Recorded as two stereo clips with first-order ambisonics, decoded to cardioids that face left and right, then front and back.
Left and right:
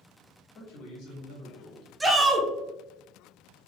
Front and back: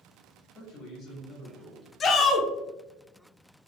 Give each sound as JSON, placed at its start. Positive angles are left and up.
{"t": 0.6, "sound": "a man speaking", "azimuth_deg": 65, "distance_m": 2.0}
{"t": 2.0, "sound": "a shout", "azimuth_deg": -20, "distance_m": 0.7}